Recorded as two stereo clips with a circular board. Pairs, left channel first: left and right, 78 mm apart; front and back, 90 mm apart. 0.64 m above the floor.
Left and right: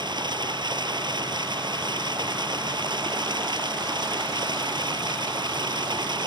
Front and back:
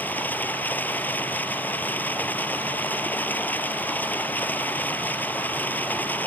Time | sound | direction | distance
0.0 | running water | 70° right | ?